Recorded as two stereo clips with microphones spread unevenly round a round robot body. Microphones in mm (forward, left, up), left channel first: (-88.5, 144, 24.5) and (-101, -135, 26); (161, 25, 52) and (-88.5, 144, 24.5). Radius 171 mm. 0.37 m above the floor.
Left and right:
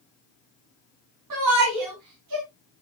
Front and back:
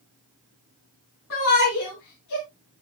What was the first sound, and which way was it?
A shout, 75° right.